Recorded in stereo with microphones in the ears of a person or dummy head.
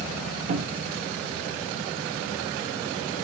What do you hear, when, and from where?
0.5 s a cupboard door: 40° right (ahead or behind), 1.0 m